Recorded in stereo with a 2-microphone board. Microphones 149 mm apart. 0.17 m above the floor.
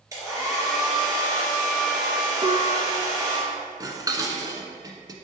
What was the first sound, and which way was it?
A hair dryer, 20° right (ahead or behind).